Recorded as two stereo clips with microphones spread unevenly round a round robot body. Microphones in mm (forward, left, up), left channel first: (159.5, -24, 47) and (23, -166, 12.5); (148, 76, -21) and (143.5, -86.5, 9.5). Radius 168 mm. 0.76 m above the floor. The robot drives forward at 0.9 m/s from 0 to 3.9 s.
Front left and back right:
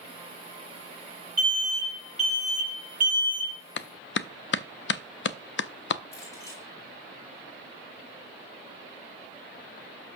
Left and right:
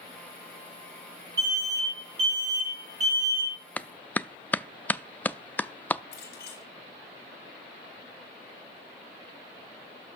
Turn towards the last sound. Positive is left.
turn(degrees=130)